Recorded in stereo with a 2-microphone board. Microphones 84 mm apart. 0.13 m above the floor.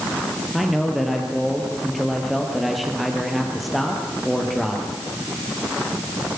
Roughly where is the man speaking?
Centre.